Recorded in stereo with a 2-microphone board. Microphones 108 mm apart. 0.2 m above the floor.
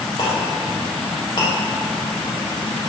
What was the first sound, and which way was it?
A clink, 45° left (ahead or behind).